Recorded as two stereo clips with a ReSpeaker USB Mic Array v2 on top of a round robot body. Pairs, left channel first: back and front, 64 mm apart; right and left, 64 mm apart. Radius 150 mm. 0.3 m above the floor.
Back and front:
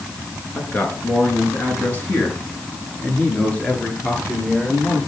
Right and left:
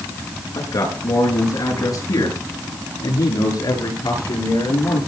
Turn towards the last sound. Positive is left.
turn(degrees=-105)